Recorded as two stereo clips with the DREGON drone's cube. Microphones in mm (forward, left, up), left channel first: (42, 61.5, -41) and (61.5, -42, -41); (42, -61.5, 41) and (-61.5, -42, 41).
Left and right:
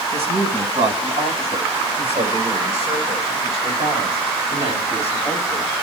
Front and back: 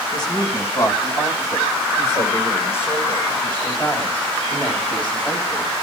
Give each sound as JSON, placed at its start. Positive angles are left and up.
{"t": 0.1, "sound": "a woman speaking", "azimuth_deg": -65, "distance_m": 5.0}